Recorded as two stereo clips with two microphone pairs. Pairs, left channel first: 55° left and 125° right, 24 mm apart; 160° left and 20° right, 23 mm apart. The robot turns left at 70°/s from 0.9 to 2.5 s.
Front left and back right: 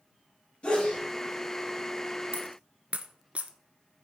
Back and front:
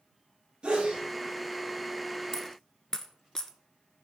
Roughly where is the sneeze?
Ahead left.